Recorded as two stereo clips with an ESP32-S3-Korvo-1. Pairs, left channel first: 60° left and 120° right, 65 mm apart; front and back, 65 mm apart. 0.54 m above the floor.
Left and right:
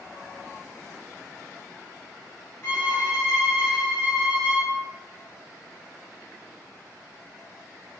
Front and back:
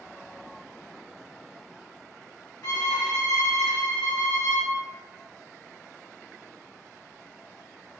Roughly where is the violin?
Ahead.